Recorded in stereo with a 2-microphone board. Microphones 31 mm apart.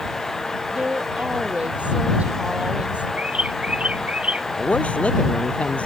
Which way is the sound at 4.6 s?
40° left (ahead or behind).